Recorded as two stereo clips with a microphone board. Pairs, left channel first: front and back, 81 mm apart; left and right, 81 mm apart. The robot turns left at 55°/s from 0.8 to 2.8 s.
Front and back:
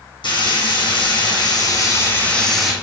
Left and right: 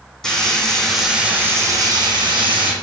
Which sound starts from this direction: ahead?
Frying, at 0.2 s.